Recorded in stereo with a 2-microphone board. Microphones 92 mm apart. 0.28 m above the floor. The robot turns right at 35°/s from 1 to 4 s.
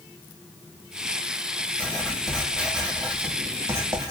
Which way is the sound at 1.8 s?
10° left (ahead or behind).